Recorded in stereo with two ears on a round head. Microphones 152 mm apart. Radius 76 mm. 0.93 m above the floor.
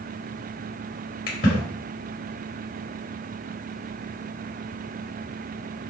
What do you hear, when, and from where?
1.3 s a splash: 55° left (ahead or behind), 3 m